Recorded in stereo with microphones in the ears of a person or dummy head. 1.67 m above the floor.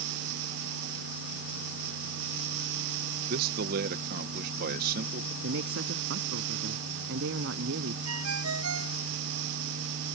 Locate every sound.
3.3 s a man speaking: 55° right (ahead or behind)
5.4 s a man speaking: 70° right (ahead or behind)
8.1 s a ringtone: 85° right